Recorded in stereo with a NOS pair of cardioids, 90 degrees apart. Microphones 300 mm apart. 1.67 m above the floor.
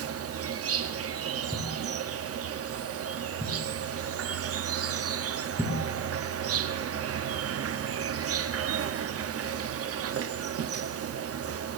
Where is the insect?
50° right, 0.9 m.